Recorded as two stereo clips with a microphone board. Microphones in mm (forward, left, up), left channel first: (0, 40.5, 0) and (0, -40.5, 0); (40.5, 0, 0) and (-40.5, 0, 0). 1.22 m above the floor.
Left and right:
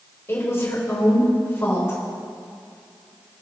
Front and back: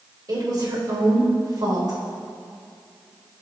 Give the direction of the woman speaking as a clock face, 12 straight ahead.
7 o'clock.